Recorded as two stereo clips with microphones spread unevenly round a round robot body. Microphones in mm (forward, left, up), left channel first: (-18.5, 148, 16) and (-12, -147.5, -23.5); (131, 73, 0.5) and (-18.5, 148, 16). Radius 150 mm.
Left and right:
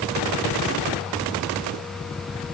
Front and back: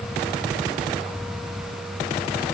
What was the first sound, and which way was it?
Only background noise.